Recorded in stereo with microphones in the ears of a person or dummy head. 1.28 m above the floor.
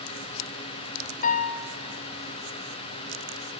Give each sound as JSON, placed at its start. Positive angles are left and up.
{"t": 1.2, "sound": "a piano", "side_deg": 45, "distance_m": 0.9}